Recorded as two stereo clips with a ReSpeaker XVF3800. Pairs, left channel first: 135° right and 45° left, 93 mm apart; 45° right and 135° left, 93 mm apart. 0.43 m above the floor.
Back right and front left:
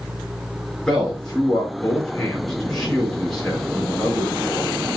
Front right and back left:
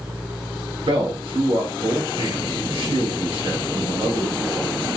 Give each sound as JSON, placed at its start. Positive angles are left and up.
{"t": 0.9, "sound": "a man speaking", "azimuth_deg": 140, "distance_m": 5.0}